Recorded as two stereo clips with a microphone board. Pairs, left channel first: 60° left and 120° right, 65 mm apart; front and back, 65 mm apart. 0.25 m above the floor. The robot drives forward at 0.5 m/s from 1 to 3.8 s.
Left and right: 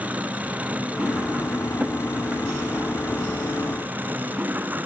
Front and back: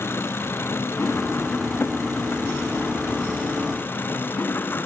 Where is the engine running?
50° right; by 4.9 s 55° right.